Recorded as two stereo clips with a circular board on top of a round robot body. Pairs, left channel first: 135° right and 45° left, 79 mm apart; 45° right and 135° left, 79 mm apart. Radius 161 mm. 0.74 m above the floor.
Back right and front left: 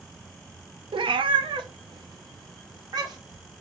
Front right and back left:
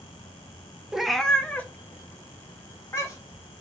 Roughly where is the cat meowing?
Ahead left.